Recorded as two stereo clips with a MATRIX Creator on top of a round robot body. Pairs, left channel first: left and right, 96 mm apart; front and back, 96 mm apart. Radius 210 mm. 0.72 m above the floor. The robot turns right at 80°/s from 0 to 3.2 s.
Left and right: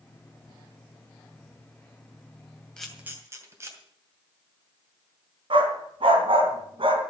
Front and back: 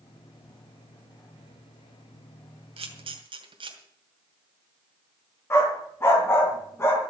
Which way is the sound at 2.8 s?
170° left.